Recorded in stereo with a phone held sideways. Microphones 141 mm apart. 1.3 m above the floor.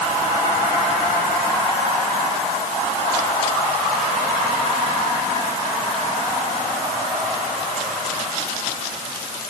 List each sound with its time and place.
Only background noise.